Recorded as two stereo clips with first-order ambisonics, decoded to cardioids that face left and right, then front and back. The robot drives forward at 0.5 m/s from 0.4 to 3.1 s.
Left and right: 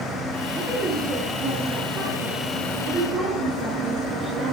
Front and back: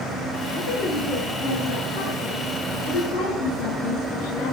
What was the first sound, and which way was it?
A woman speaking, 10° right.